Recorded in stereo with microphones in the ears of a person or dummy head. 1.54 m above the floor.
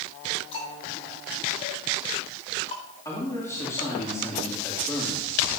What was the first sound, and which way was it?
Ticking, 35° left (ahead or behind).